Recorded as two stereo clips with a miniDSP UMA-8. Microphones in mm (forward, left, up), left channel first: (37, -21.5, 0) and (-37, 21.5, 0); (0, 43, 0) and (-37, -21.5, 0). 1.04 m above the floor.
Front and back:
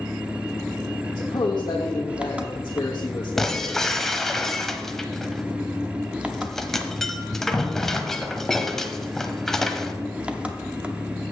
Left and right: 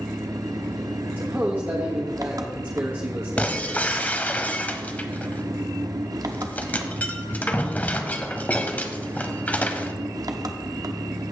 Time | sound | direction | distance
0.0 | an engine running | 135° right | 0.8 m
1.2 | a man speaking | 65° right | 1.3 m
3.4 | breaking glass | 45° left | 0.9 m